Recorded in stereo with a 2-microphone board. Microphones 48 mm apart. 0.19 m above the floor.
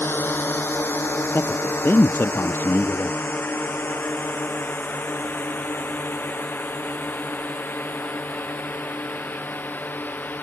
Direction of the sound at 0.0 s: 50° left (ahead or behind).